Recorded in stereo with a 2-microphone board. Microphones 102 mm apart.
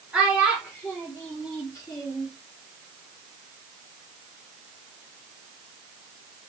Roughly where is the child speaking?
Centre.